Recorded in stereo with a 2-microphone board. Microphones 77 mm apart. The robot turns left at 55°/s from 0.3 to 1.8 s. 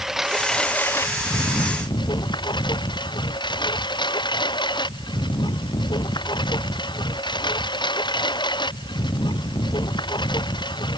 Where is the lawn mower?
175° right; by 11.0 s 105° left.